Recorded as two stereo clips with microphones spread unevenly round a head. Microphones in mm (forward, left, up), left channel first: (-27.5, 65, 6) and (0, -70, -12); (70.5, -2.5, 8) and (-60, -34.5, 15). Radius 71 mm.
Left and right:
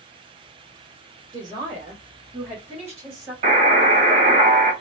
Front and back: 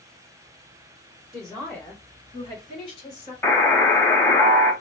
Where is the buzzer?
55° right, 1.1 m.